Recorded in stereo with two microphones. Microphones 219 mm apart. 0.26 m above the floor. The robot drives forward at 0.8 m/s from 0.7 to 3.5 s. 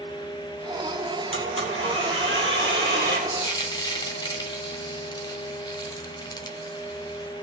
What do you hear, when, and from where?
1.3 s a blender: 85° right, 2.5 m; by 3.2 s 60° right (ahead or behind), 3 m
3.3 s frying: 20° left (ahead or behind), 1.2 m